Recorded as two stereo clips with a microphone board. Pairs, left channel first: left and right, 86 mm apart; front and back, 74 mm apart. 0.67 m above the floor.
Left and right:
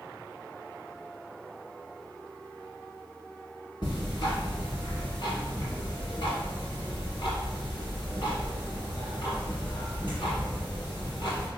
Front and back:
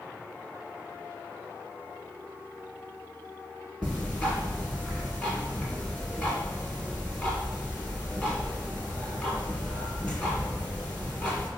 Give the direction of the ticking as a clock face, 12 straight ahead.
10 o'clock.